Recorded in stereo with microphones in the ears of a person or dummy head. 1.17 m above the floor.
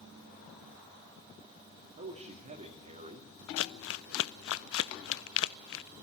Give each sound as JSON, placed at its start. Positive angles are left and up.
{"t": 2.0, "sound": "a man speaking", "side_deg": -30, "distance_m": 2.0}
{"t": 3.6, "sound": "crumpling", "side_deg": 60, "distance_m": 0.5}